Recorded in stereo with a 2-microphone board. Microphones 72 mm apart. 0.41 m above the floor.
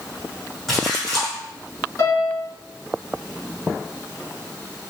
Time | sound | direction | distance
0.7 | a splash | 5° left (ahead or behind) | 2 m
2.0 | a piano | 45° left (ahead or behind) | 1.7 m